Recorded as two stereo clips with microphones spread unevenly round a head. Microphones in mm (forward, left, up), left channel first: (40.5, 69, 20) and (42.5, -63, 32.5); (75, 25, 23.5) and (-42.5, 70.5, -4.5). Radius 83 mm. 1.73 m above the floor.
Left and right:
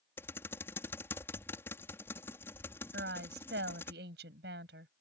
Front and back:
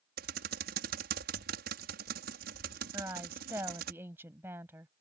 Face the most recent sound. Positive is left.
turn(degrees=-120)